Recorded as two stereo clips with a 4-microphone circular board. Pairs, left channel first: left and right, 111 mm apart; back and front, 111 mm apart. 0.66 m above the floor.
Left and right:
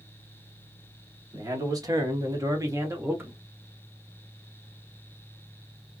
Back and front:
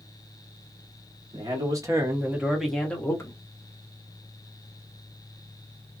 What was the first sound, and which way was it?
A man speaking, 40° right.